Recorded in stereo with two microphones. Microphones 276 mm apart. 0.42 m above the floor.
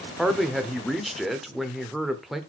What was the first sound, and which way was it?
A man speaking, centre (ahead or behind).